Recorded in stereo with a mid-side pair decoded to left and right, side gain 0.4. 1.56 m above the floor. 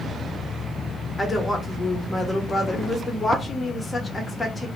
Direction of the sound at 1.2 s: 20° left.